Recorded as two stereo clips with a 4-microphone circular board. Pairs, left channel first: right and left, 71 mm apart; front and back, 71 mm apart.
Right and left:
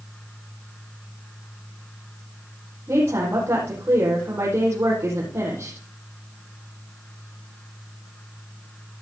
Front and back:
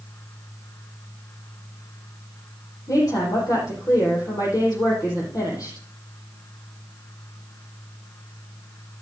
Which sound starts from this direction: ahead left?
A woman speaking, at 2.9 s.